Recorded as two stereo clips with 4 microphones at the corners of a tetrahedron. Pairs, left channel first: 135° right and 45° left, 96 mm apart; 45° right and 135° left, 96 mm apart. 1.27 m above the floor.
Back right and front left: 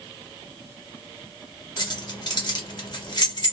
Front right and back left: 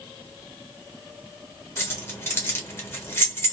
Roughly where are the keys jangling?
Right.